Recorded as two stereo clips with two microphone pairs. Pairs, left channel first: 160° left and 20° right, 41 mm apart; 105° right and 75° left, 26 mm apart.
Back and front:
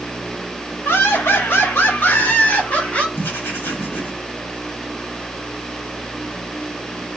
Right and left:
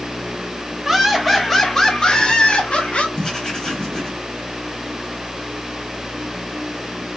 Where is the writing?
175° right, 2.5 m.